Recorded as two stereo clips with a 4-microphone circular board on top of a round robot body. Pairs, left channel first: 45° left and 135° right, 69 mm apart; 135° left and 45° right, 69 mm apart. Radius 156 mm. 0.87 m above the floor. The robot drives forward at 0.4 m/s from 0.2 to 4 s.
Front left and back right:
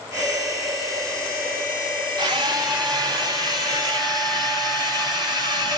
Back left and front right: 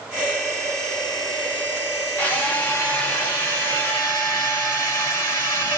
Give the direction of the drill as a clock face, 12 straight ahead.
5 o'clock.